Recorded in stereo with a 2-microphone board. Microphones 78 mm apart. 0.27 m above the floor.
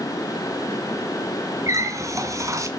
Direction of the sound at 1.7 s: 40° right (ahead or behind).